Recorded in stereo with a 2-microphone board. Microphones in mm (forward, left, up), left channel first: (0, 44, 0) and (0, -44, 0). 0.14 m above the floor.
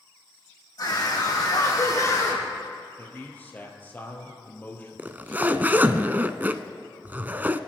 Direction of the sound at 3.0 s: 20° left (ahead or behind).